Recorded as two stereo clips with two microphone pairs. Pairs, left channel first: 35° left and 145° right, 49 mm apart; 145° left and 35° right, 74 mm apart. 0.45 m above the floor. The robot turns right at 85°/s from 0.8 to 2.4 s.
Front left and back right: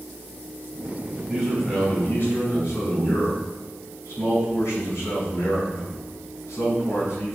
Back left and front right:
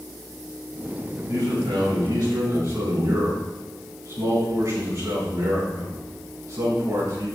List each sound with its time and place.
1.3 s a man speaking: 85° right, 3.5 m; by 7.3 s 10° left, 3.5 m